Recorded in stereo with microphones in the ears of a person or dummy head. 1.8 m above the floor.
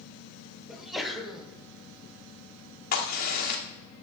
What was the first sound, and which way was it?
A sneeze, centre (ahead or behind).